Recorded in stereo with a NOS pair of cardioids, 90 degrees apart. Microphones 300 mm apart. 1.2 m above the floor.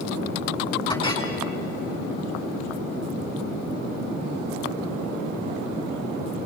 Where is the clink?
15° left, 10 m.